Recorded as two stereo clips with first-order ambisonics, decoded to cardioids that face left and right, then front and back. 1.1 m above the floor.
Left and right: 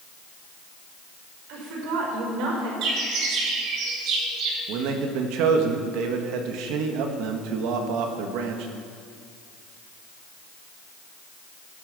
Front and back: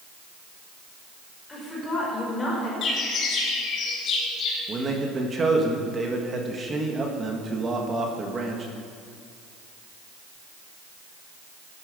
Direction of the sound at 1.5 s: 75° right.